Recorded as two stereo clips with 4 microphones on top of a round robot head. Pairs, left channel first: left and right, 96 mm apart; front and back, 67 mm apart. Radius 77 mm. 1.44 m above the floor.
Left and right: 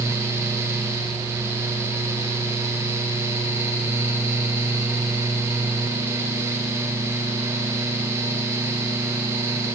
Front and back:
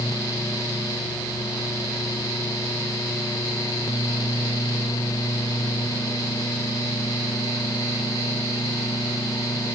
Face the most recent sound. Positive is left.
No sound to turn to.